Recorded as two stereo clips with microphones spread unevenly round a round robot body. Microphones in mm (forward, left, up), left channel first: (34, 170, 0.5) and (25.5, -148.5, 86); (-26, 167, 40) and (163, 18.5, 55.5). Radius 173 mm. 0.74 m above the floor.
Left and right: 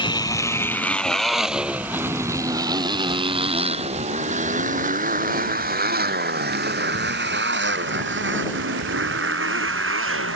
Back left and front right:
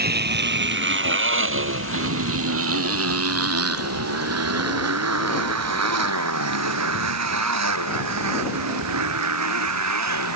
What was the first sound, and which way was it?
A motorcycle, 10° left.